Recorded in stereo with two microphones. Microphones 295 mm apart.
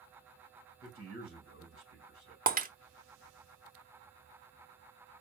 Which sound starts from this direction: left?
A man speaking, at 0.8 s.